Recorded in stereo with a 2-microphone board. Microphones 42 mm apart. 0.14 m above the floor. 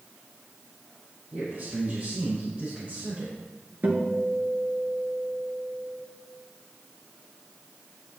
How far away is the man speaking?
About 5 m.